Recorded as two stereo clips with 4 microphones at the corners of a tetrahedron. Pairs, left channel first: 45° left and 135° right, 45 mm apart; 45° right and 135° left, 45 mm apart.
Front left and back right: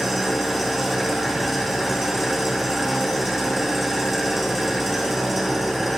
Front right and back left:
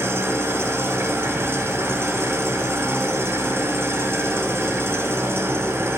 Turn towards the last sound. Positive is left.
turn(degrees=135)